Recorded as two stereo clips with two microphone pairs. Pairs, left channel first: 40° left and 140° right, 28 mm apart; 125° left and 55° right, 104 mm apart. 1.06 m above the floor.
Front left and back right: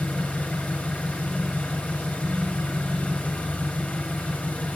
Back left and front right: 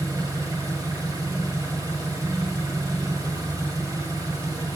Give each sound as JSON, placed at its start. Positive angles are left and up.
{"t": 0.0, "sound": "an engine running", "azimuth_deg": 5, "distance_m": 1.7}